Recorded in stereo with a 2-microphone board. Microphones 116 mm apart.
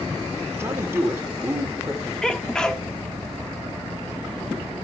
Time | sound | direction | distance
0.5 | a man speaking | 20° right (ahead or behind) | 2 m
2.2 | a sneeze | 5° left (ahead or behind) | 1.2 m